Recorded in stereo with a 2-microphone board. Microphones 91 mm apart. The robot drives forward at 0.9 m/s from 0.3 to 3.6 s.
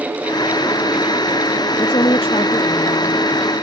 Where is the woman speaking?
65° left (ahead or behind); by 3.2 s 75° left (ahead or behind).